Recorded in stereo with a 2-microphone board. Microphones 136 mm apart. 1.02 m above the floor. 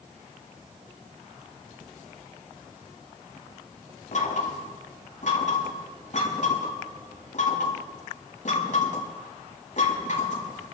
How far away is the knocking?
About 6.5 m.